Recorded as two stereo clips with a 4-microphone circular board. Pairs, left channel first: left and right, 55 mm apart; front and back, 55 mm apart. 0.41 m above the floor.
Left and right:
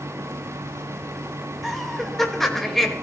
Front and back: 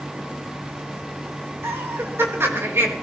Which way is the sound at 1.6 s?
175° left.